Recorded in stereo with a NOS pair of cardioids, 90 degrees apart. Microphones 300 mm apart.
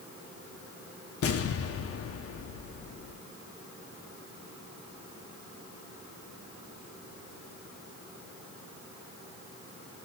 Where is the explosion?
50° left, 1.0 m.